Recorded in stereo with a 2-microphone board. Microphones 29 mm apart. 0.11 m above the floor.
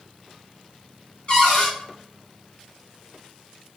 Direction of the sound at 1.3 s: 35° left (ahead or behind).